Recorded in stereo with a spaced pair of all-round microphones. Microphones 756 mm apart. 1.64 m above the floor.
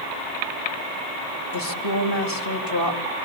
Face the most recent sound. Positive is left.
turn(degrees=30)  # may be behind; listen again after turning